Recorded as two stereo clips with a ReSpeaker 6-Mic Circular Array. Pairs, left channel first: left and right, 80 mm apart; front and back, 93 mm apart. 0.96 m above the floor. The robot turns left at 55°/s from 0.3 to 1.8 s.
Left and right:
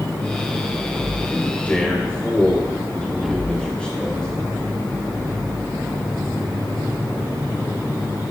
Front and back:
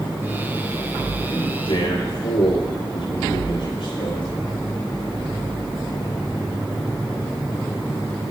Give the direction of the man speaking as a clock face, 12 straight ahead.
11 o'clock.